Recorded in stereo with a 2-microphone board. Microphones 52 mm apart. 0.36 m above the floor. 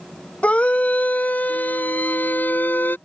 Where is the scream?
25° left (ahead or behind); by 3.0 s 40° left (ahead or behind).